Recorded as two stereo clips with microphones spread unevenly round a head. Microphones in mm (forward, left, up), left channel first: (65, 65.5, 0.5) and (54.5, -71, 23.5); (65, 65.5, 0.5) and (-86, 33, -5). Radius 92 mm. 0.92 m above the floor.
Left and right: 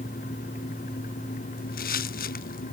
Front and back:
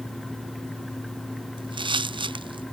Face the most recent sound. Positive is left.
turn(degrees=130)